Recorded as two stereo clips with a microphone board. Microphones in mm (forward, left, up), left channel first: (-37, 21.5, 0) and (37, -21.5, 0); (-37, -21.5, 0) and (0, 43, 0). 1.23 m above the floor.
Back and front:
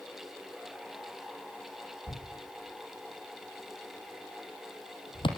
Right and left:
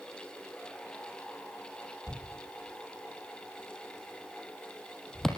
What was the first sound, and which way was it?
A thud, 155° left.